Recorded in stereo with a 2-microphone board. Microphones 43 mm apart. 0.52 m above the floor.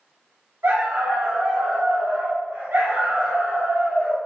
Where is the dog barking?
85° right, 1.1 m; by 4.2 s 65° right (ahead or behind), 2.5 m.